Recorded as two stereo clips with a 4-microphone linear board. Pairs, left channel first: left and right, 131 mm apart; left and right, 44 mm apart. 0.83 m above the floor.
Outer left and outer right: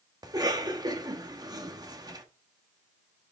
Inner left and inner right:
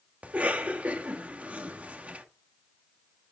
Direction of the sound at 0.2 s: 30° right (ahead or behind).